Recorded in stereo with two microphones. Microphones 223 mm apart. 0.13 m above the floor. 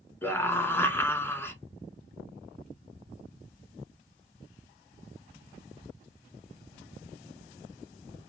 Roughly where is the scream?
Centre.